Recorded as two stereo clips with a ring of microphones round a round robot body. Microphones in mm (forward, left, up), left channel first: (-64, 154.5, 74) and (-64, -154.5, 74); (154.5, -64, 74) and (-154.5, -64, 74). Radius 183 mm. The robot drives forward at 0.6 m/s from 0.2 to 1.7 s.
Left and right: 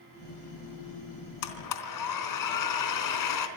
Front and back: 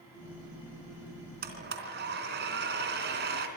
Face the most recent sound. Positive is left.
turn(degrees=115)